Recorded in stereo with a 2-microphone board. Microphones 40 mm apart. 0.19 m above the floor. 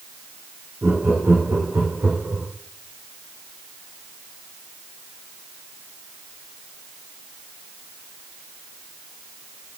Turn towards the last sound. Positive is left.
turn(degrees=-80)